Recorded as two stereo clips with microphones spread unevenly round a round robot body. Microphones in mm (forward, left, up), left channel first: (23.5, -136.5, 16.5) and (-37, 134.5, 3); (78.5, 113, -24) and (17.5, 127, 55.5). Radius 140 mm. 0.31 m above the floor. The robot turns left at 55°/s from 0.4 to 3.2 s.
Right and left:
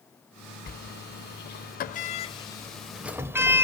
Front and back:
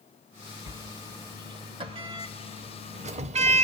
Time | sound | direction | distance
0.7 | a sliding door | 45° right | 0.6 m